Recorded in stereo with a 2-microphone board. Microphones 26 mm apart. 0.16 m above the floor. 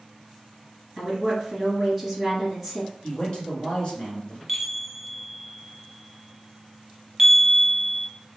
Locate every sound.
1.0 s a woman speaking: 10° left (ahead or behind), 1.9 m
3.0 s a man speaking: 45° left (ahead or behind), 1.7 m
4.5 s a chime: 5° right (ahead or behind), 0.9 m